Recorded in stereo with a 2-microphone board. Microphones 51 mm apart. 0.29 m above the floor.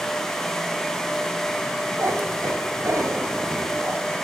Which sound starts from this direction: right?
A cat meowing, at 2.0 s.